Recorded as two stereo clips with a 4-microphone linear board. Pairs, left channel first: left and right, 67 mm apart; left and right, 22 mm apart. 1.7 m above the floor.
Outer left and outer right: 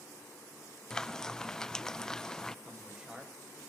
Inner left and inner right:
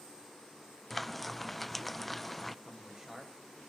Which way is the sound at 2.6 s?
15° right (ahead or behind).